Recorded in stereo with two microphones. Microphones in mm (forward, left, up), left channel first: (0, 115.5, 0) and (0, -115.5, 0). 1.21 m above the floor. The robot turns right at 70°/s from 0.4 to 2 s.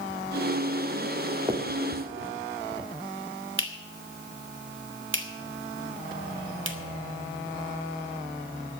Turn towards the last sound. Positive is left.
turn(degrees=-60)  # may be behind; listen again after turning